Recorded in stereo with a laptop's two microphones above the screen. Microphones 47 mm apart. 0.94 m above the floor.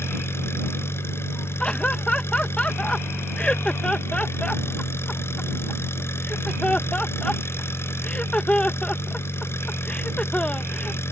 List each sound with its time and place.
0.0 s an engine running: 60° left (ahead or behind)
1.6 s laughter: 25° left (ahead or behind)